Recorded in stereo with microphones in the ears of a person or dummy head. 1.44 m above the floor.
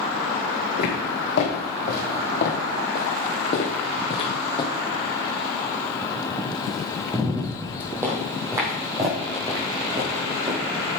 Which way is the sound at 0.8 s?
65° left (ahead or behind).